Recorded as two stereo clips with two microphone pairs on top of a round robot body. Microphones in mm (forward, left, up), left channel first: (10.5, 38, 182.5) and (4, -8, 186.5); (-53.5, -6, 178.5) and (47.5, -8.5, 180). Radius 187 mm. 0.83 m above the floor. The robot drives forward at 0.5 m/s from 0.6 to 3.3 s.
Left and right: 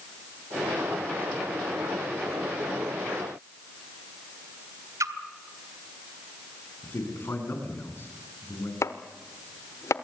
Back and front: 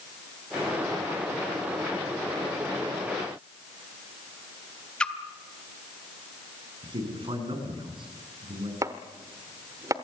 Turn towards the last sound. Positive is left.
turn(degrees=60)